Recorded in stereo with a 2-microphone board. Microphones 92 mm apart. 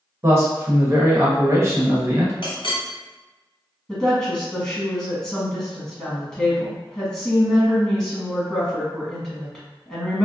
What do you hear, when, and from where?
0.2 s a man speaking: 30° right (ahead or behind), 0.9 m
2.4 s a clink: 60° left (ahead or behind), 1.0 m
3.9 s a woman speaking: 10° left (ahead or behind), 1.5 m